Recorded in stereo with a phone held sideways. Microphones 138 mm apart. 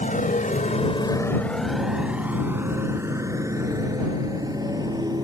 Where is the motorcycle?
75° left (ahead or behind); by 5.2 s 30° right (ahead or behind).